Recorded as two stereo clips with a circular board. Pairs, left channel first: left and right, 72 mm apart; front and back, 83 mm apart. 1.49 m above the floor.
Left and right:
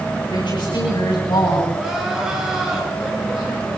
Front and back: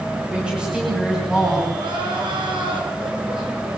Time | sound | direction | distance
0.3 | a woman speaking | 100° left | 10 m
1.7 | crying | 170° right | 5.5 m